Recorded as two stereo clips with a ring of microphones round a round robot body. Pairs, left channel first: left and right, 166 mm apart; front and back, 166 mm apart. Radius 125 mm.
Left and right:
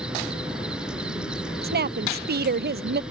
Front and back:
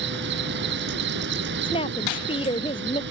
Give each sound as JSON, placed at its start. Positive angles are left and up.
{"t": 0.0, "sound": "an insect", "azimuth_deg": -175}
{"t": 1.6, "sound": "a woman speaking", "azimuth_deg": -70}